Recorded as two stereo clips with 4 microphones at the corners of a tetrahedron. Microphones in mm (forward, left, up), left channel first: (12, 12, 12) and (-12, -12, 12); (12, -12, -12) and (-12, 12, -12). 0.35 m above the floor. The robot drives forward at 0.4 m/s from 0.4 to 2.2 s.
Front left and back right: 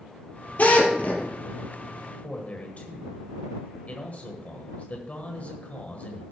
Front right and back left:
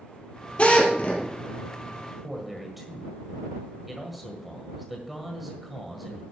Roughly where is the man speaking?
Ahead left.